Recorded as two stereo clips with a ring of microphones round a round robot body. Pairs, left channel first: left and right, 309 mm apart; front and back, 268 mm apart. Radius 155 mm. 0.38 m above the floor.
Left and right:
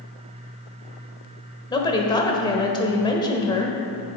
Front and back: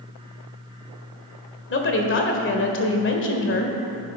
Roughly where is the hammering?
I don't hear hammering.